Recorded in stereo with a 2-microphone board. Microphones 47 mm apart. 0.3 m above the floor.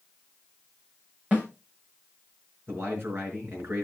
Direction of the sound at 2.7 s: 50° right (ahead or behind).